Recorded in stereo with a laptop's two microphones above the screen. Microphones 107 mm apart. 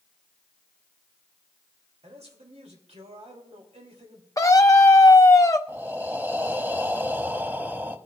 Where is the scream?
30° left (ahead or behind), 0.6 m.